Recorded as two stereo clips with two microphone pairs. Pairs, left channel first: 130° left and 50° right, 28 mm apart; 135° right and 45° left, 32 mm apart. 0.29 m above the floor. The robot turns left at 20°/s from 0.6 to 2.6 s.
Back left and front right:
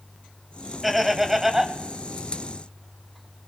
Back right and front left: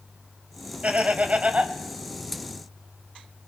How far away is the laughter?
About 1.3 m.